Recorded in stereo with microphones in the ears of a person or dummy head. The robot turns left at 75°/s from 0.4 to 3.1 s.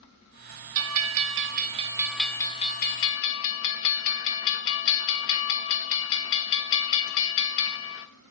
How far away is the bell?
About 1.3 m.